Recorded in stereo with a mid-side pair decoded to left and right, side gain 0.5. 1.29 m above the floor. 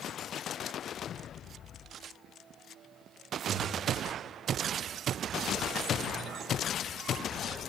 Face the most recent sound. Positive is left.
turn(degrees=-50)